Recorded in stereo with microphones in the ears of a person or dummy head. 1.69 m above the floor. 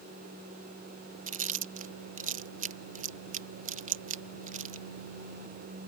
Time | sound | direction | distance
1.3 | chewing | 50° right (ahead or behind) | ?